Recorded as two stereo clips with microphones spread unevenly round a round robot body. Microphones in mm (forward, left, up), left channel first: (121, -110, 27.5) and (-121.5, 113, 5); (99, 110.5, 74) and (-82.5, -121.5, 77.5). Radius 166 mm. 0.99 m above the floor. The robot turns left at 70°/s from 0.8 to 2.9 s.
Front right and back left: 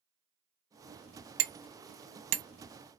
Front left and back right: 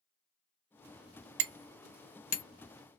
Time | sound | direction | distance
1.4 | hammering | 175° right | 0.8 m